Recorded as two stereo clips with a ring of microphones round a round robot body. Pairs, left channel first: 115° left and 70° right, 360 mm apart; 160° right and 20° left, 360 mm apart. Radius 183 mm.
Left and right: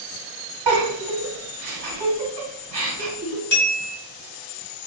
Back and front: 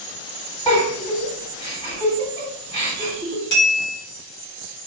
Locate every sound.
0.7 s a giggle: 85° right, 1.5 m
3.5 s a bell: 170° left, 1.8 m